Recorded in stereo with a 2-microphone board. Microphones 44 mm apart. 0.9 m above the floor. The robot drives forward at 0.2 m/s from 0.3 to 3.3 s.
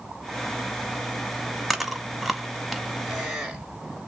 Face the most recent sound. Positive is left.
turn(degrees=-5)  # may be behind; listen again after turning